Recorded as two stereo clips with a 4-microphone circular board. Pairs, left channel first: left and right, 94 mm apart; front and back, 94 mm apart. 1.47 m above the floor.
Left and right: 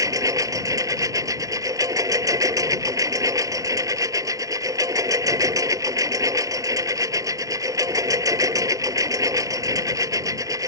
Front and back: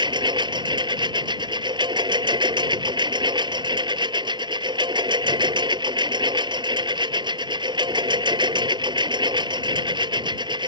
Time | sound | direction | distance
0.0 | a lawn mower | 145° right | ?